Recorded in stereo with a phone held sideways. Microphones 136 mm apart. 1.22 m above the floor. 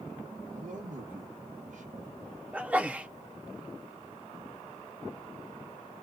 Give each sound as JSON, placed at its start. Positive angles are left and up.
{"t": 0.5, "sound": "a man speaking", "side_deg": -65, "distance_m": 0.8}
{"t": 2.5, "sound": "a sneeze", "side_deg": -10, "distance_m": 0.6}